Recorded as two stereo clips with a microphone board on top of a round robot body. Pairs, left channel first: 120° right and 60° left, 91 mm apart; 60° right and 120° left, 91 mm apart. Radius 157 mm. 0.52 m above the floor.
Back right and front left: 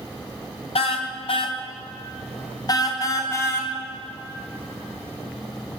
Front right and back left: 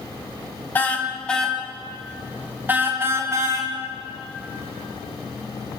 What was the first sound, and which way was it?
A car horn, 130° right.